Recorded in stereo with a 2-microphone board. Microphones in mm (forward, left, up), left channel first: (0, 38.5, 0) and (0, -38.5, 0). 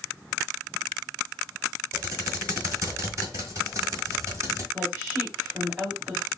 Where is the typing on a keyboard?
40° right (ahead or behind), 1.7 m.